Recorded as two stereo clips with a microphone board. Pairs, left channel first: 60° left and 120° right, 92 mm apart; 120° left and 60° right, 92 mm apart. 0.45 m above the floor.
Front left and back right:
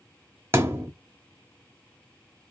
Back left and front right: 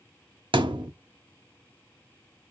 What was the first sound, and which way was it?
A thud, 65° right.